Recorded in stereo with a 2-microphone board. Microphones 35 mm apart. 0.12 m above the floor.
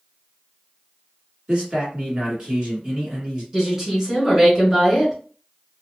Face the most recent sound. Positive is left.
turn(degrees=-20)  # may be behind; listen again after turning